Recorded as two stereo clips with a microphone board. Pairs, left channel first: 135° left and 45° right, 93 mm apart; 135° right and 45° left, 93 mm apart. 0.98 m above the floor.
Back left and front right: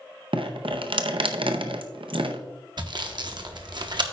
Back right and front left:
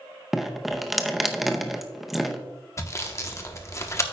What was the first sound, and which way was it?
Dripping, 45° right.